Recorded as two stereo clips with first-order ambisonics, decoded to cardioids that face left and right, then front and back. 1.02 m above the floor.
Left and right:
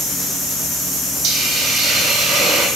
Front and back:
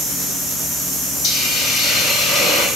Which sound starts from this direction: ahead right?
A hiss, at 1.2 s.